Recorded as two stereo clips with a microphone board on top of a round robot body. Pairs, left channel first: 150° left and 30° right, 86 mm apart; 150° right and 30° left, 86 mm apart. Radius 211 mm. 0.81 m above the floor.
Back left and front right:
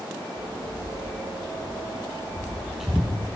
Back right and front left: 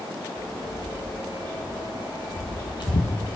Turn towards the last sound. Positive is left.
turn(degrees=-140)